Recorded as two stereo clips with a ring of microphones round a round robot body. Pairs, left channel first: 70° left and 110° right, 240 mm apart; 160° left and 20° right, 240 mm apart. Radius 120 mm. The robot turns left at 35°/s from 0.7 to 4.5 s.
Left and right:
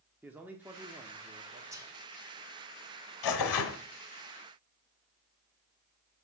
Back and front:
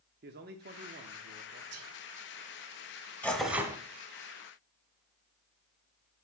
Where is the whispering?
35° right, 2.0 m; by 1.9 s 45° right, 2.0 m.